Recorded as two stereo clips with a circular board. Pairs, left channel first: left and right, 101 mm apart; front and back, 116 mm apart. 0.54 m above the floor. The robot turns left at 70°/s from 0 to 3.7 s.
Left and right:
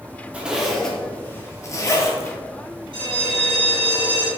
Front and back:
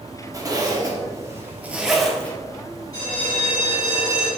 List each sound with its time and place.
0.3 s a zipper: 155° right, 0.6 m; by 2.4 s 65° left, 0.6 m
2.9 s a bell: 55° right, 1.5 m; by 4.3 s 110° right, 1.5 m